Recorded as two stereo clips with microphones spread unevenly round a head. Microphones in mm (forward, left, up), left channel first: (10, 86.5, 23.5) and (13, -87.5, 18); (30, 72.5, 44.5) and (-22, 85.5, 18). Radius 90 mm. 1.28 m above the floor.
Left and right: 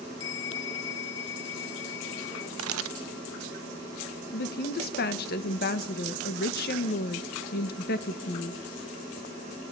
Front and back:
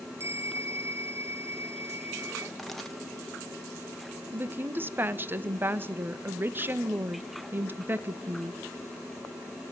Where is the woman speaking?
125° left, 1.7 m.